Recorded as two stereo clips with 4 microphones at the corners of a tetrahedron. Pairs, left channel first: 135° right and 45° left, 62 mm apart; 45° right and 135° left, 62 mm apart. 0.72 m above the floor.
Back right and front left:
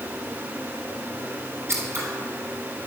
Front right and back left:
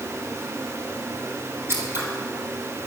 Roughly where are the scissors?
Left.